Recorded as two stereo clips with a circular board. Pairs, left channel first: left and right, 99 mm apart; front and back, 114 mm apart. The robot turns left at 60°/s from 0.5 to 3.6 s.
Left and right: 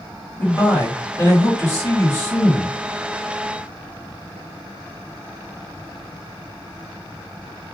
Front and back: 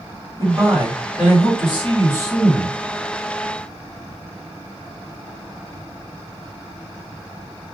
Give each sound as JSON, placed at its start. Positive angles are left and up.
{"t": 0.4, "sound": "a man speaking", "azimuth_deg": 155, "distance_m": 1.8}